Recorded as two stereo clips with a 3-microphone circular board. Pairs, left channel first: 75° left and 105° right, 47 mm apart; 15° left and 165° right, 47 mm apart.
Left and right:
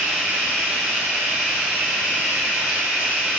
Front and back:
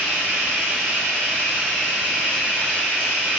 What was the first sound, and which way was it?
Running water, 35° right.